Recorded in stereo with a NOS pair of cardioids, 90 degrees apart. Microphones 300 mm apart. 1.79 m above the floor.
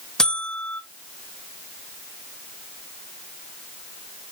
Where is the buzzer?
Straight ahead, 0.9 m.